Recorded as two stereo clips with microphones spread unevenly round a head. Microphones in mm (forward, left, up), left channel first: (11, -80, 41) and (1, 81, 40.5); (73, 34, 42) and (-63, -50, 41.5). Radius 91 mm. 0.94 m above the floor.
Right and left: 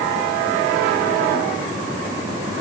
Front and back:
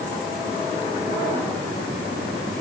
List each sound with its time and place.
Only background noise.